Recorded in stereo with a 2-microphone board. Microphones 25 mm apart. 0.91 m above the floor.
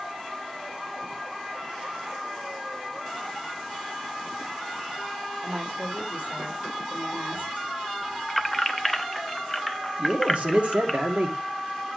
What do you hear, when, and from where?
5.4 s a woman speaking: 70° right (ahead or behind), 3 m
8.3 s keys jangling: centre (ahead or behind), 0.7 m
10.0 s a man speaking: 50° right (ahead or behind), 2 m